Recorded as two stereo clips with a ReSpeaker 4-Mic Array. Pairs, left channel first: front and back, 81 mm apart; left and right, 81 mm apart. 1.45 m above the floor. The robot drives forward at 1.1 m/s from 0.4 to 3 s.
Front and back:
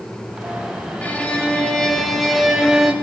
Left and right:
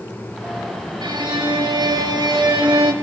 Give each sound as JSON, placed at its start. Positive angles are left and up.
{"t": 1.0, "sound": "a violin", "azimuth_deg": -70, "distance_m": 4.0}